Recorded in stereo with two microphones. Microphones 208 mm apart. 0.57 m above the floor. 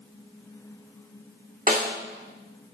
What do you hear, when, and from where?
1.7 s a snare drum: 40° right (ahead or behind), 1.5 m